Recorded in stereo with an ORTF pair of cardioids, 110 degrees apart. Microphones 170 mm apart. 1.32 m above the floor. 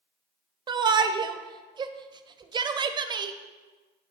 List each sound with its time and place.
0.7 s a shout: 25° right, 0.5 m